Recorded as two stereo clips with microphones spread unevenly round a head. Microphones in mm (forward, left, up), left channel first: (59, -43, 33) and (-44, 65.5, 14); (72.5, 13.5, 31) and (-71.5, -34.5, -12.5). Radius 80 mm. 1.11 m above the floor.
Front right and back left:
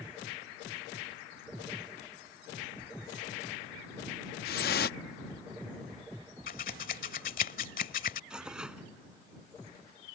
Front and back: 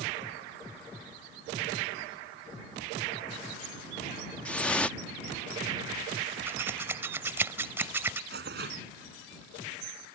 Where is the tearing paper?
140° right.